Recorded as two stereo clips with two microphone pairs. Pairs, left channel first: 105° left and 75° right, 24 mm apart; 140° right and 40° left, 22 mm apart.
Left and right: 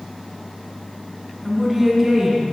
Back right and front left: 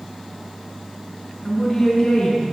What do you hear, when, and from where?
1.4 s a woman speaking: straight behind, 1.0 m; by 2.4 s 120° right, 1.3 m